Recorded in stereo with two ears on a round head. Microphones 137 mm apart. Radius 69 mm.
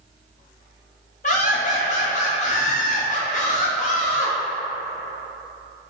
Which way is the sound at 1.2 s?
50° left (ahead or behind).